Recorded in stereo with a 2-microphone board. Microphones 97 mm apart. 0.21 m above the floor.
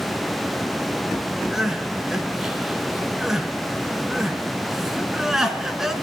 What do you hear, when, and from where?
1.5 s crying: 5° right (ahead or behind), 2 m